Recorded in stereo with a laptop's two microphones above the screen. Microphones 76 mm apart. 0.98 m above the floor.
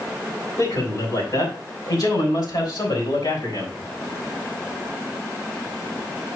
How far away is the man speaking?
About 4 m.